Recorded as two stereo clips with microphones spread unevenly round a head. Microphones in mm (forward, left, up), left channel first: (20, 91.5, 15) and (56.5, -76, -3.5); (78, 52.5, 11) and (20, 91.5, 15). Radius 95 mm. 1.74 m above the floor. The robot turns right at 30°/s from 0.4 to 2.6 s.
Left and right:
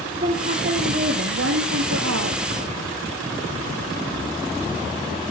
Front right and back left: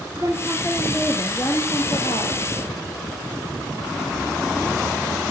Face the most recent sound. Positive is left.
turn(degrees=-75)